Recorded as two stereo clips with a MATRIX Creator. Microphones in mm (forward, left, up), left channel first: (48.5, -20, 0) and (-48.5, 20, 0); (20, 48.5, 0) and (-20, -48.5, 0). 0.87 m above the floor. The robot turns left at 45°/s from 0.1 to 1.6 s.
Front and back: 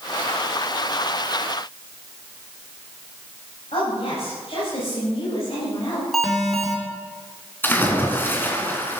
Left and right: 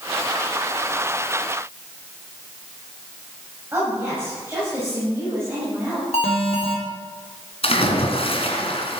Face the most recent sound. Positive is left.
turn(degrees=50)